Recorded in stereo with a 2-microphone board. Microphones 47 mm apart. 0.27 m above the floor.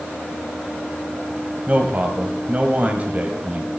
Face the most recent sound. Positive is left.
turn(degrees=-35)  # may be behind; listen again after turning